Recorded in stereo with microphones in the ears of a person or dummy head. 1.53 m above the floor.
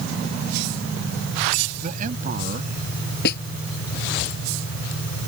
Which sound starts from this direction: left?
A snare drum, at 3.2 s.